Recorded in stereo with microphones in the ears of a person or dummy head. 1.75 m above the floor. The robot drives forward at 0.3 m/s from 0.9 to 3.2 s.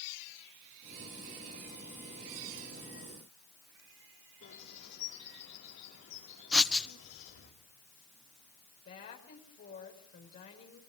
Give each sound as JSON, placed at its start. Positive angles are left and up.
{"t": 4.4, "sound": "a bird", "side_deg": 65, "distance_m": 5.0}
{"t": 6.5, "sound": "writing", "side_deg": 5, "distance_m": 1.1}
{"t": 8.8, "sound": "a woman speaking", "side_deg": 40, "distance_m": 5.5}